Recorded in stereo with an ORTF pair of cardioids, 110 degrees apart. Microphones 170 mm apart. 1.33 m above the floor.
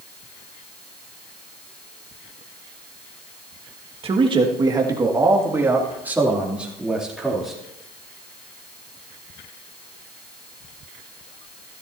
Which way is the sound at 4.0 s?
35° right.